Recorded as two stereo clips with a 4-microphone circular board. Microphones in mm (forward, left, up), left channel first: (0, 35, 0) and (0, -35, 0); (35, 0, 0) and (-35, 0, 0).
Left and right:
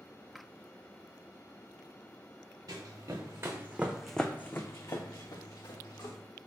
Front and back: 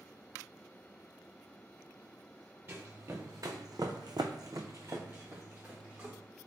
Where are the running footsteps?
120° right, 1.1 m; by 6.2 s 110° left, 1.4 m.